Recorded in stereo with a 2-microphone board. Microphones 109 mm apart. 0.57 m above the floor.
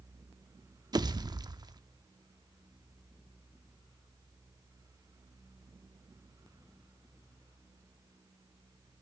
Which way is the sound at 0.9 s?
40° right (ahead or behind).